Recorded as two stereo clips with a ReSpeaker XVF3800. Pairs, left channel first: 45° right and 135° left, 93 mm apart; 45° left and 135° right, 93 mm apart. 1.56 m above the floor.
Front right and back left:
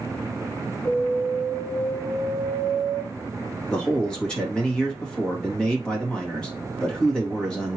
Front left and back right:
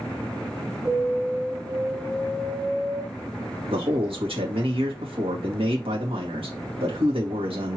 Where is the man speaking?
125° right, 2 m.